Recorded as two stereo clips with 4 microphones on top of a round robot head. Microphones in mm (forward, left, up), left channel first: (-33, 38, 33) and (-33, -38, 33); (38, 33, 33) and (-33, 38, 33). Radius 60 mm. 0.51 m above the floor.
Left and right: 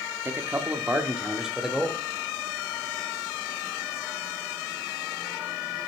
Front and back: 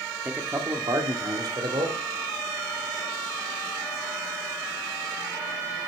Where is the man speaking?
130° right, 0.9 m; by 2.0 s 175° right, 1.6 m.